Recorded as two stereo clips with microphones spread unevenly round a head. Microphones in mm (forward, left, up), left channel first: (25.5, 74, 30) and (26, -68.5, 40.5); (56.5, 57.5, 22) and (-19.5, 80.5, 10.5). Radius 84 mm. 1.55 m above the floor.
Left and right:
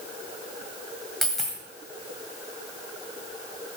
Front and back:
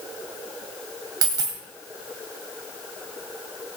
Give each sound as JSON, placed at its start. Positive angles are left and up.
{"t": 1.2, "sound": "a dropped coin", "azimuth_deg": -175, "distance_m": 1.6}